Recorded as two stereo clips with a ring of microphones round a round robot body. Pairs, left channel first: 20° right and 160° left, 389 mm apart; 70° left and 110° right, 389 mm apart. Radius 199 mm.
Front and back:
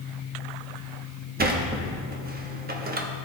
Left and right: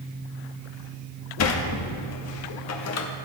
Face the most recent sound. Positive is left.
turn(degrees=100)